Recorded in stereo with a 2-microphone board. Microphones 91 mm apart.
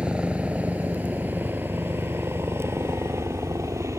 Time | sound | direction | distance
0.0 | a helicopter | 10° right (ahead or behind) | ?